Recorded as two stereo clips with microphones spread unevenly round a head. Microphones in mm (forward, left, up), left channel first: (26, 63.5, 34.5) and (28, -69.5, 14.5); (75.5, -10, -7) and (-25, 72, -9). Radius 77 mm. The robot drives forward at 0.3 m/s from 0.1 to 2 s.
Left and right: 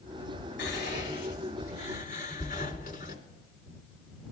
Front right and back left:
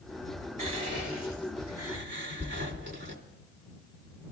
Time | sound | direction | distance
0.6 | whispering | 125° left | 2.5 m